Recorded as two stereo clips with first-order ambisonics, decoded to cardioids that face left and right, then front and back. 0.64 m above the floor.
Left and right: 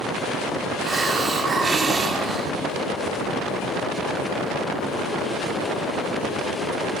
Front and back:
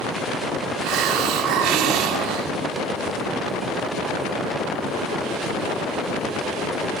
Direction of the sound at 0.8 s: 160° right.